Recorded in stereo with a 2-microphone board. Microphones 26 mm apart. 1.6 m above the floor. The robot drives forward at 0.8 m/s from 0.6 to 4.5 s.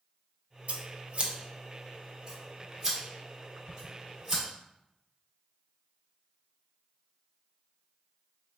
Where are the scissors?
65° right (ahead or behind), 0.7 m; by 4.4 s 10° right (ahead or behind), 3.5 m.